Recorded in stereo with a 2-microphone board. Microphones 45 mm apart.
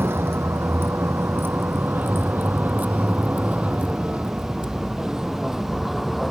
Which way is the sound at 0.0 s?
65° right (ahead or behind).